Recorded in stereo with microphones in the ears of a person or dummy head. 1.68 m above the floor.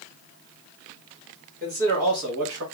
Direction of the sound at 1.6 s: 35° right (ahead or behind).